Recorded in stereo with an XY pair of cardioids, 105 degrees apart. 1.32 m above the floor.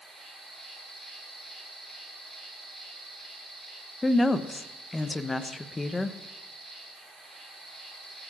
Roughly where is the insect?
Ahead right.